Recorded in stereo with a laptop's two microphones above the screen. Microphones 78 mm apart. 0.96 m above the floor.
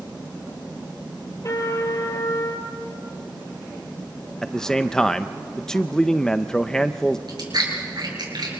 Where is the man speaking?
10° left (ahead or behind), 0.5 m.